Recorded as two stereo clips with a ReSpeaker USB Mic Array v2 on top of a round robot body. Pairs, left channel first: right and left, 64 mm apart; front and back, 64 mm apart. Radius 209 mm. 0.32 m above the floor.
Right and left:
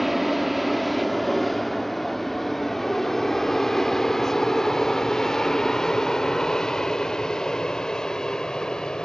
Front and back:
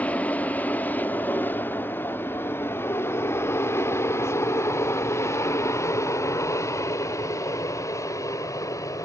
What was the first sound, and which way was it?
An aircraft, 5° left.